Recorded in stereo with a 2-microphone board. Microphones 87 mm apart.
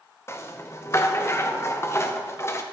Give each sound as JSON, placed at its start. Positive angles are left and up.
{"t": 0.3, "sound": "a rattle", "side_deg": 30, "distance_m": 0.8}